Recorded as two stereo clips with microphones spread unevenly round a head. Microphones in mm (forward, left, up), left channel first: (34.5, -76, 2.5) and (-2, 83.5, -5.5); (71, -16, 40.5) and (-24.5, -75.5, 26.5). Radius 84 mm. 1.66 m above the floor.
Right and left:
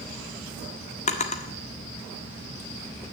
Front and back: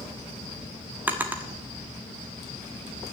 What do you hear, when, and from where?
1.1 s a drawer: 70° right, 1.4 m